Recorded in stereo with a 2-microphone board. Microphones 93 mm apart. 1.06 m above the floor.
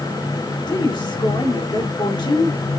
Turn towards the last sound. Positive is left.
turn(degrees=55)  # may be behind; listen again after turning